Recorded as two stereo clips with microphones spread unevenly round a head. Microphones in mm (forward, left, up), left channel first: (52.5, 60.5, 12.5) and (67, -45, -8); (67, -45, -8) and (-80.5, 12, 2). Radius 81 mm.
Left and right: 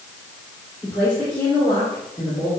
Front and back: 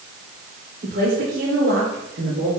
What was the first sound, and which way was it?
A woman speaking, 170° right.